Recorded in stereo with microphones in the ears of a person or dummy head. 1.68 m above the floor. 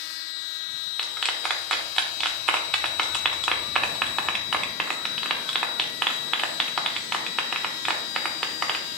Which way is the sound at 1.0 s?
Centre (ahead or behind).